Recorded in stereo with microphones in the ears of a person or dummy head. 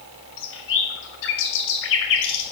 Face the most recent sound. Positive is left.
turn(degrees=65)  # may be behind; listen again after turning